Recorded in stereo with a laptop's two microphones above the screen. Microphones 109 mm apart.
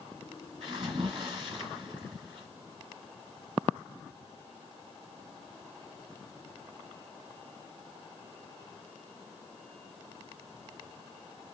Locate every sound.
0.6 s a splash: 50° right (ahead or behind), 1.6 m